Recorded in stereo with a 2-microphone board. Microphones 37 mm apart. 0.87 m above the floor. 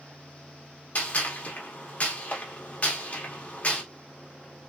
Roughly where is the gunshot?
Left.